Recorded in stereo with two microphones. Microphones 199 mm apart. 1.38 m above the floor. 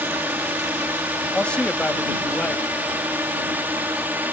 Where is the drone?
10° right (ahead or behind).